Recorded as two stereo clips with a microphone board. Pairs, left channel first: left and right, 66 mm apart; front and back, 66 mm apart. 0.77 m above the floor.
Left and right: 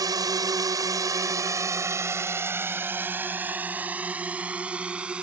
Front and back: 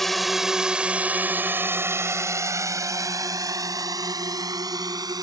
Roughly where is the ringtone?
No ringtone in this recording.